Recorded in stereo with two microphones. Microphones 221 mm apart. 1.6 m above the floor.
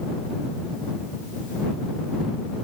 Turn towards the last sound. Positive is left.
No sound to turn to.